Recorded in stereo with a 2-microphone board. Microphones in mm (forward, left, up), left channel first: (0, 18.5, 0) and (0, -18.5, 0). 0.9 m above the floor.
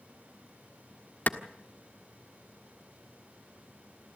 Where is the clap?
55° left (ahead or behind), 1.4 m.